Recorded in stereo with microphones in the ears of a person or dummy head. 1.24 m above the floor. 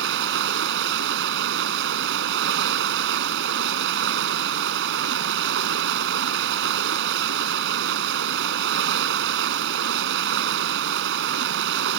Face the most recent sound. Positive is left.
turn(degrees=-60)  # may be behind; listen again after turning